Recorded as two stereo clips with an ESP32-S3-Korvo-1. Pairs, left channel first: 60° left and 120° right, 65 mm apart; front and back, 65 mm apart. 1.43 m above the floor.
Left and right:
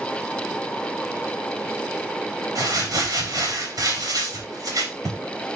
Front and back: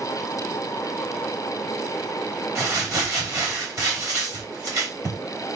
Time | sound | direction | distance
2.5 | crumpling | 145° right | 4.5 m